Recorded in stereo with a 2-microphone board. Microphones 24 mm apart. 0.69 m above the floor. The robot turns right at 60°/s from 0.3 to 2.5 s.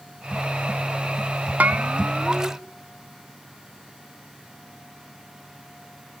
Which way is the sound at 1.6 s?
70° right.